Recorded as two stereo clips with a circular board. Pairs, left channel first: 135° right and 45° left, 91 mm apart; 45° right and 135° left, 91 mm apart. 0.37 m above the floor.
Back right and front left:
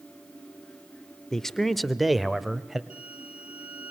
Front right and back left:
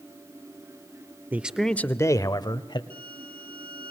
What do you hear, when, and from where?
1.3 s a man speaking: 150° left, 0.8 m; by 2.8 s 40° right, 1.5 m
2.9 s a violin: 120° left, 2.5 m